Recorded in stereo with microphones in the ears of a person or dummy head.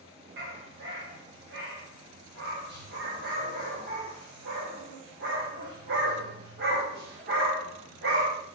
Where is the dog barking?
60° right (ahead or behind), 2.5 m.